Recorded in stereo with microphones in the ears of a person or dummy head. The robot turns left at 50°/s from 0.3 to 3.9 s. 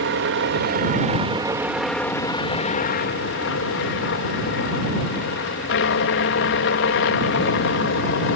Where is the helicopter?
100° right; by 8.4 s 80° left.